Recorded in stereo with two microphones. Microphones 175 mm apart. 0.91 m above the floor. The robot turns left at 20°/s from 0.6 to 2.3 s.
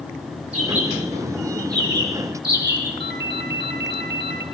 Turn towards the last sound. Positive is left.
turn(degrees=-80)